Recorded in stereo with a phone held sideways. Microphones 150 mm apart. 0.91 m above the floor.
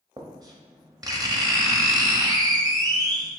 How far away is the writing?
About 0.7 m.